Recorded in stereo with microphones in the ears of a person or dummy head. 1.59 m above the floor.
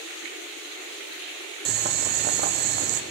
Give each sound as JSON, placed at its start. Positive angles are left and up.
{"t": 1.6, "sound": "boiling", "side_deg": -50, "distance_m": 1.3}